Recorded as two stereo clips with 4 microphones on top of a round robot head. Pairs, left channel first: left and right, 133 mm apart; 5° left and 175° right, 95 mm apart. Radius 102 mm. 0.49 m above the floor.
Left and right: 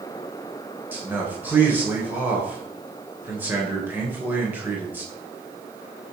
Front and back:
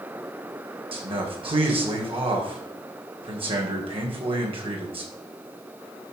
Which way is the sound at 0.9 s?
165° right.